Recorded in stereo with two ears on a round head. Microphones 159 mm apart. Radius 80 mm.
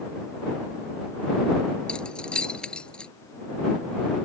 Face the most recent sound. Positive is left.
turn(degrees=5)  # may be behind; listen again after turning